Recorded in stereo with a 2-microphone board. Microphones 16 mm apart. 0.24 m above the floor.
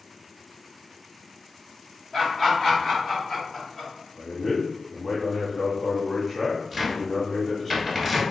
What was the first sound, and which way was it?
Laughter, 35° left (ahead or behind).